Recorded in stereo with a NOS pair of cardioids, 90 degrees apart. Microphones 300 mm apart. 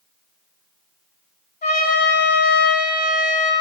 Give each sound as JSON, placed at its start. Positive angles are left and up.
{"t": 1.6, "sound": "a trumpet", "azimuth_deg": 30, "distance_m": 1.7}